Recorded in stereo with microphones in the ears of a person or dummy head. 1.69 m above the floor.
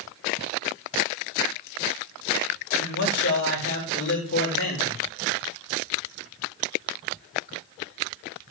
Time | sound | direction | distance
2.8 | a man speaking | 55° left (ahead or behind) | 2 m